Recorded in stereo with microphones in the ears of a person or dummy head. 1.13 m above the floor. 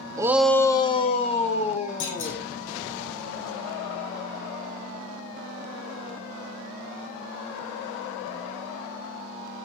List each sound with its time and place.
0.2 s a shout: 20° right (ahead or behind), 0.6 m; by 2.5 s 35° left (ahead or behind), 2.5 m
2.0 s a clunk: 70° left (ahead or behind), 7.5 m